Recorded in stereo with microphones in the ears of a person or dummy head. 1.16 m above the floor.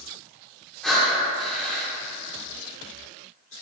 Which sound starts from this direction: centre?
Breathing, at 0.8 s.